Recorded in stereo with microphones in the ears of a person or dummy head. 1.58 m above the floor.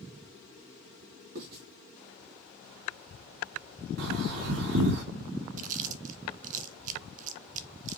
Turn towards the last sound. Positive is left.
turn(degrees=-40)  # may be behind; listen again after turning